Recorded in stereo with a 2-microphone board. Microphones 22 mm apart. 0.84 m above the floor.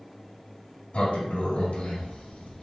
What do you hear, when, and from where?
0.9 s a sliding door: 60° left (ahead or behind), 1.2 m